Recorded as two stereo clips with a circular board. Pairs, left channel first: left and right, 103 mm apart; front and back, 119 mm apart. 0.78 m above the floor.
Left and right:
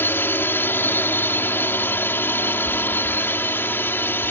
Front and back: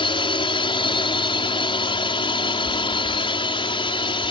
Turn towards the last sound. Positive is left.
turn(degrees=25)